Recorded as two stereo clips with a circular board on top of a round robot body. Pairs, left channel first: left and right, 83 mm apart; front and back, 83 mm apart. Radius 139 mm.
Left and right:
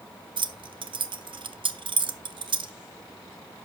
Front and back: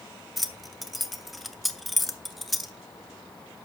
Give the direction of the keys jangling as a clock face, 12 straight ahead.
3 o'clock.